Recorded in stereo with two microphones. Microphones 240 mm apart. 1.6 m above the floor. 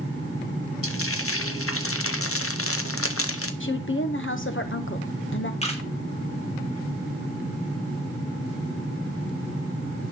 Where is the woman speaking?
55° left (ahead or behind), 1.0 m.